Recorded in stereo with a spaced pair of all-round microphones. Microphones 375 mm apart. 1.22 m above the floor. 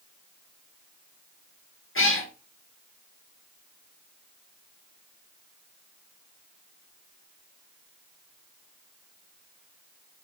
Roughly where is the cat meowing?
Left.